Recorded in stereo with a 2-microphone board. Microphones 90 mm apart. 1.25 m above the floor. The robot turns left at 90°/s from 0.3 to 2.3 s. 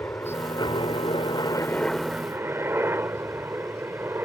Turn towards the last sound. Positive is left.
turn(degrees=-25)  # may be behind; listen again after turning